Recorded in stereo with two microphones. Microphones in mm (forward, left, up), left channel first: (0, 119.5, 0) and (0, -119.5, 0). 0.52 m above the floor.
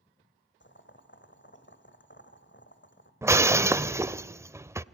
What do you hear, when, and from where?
0.6 s boiling: 50° left (ahead or behind), 2 m
3.2 s breaking glass: 10° right (ahead or behind), 0.6 m